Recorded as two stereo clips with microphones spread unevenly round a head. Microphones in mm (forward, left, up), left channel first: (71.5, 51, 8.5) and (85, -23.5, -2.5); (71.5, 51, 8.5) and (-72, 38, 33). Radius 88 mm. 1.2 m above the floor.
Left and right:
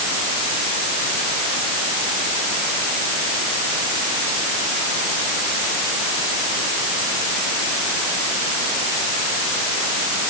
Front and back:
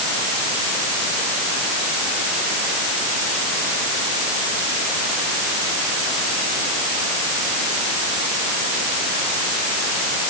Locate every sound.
Only background noise.